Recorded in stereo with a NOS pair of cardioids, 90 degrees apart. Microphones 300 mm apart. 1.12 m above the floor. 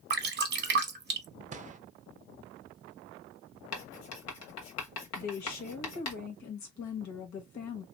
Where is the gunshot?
25° right, 0.5 m.